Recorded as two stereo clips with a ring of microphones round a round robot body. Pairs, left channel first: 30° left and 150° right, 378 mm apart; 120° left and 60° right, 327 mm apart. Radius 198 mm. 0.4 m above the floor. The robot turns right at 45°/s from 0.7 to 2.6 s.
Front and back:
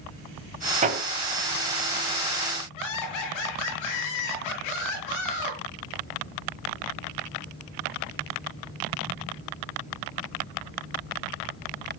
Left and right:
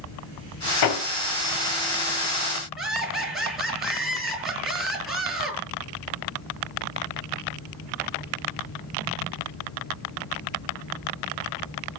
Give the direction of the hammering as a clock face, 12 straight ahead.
7 o'clock.